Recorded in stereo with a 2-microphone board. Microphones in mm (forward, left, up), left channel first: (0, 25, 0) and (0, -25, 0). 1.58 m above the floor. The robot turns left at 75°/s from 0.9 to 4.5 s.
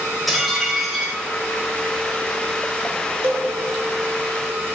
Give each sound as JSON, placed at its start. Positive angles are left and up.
{"t": 0.3, "sound": "dishes clattering", "side_deg": 0, "distance_m": 4.5}
{"t": 3.2, "sound": "a cowbell", "side_deg": -55, "distance_m": 1.7}